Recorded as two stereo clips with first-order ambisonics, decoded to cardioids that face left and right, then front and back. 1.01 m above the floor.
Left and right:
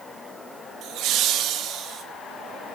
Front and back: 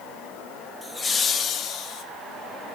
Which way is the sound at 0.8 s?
80° right.